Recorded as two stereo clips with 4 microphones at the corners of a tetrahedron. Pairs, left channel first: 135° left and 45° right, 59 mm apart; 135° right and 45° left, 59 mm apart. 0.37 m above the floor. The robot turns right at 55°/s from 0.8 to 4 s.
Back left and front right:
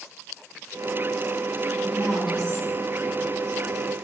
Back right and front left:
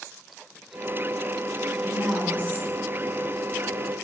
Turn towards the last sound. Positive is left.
turn(degrees=80)